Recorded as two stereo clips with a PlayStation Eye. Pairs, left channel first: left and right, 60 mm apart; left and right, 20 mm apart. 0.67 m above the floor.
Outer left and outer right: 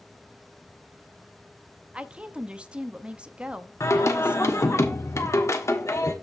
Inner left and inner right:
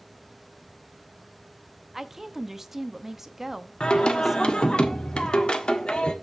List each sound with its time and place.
1.9 s a woman speaking: 20° right (ahead or behind), 0.7 m
3.8 s singing: 55° left (ahead or behind), 1.4 m